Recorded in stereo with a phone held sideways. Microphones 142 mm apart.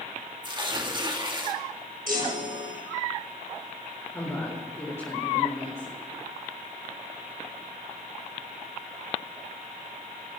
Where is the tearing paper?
35° right (ahead or behind), 1.9 m.